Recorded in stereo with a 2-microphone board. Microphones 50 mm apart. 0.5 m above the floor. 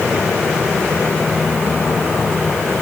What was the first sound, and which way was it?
Only background noise.